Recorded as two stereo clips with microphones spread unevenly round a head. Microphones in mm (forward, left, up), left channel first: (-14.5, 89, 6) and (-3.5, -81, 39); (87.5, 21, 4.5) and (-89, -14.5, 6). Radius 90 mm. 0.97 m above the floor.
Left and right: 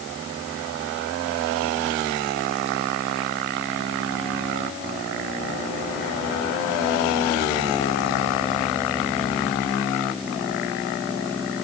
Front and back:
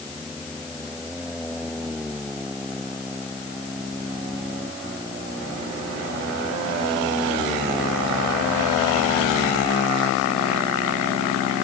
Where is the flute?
I don't hear a flute.